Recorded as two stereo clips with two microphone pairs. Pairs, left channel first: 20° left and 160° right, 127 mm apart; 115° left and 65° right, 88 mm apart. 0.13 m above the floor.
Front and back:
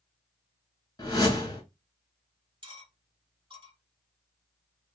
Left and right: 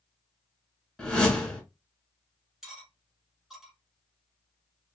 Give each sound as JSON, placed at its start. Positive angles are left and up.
{"t": 1.0, "sound": "a whoosh", "azimuth_deg": 40, "distance_m": 1.0}
{"t": 2.6, "sound": "cutlery clinking", "azimuth_deg": -150, "distance_m": 0.9}